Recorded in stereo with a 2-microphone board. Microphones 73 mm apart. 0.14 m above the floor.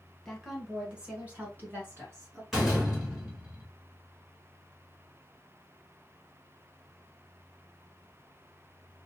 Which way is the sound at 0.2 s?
Centre (ahead or behind).